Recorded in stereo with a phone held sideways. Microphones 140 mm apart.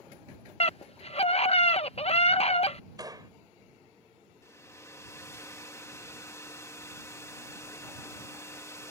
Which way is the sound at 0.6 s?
45° left (ahead or behind).